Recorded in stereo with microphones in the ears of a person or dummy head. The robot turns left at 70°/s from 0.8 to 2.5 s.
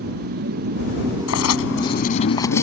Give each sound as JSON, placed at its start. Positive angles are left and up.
{"t": 0.0, "sound": "a motorcycle", "azimuth_deg": -130}
{"t": 1.3, "sound": "writing", "azimuth_deg": 100}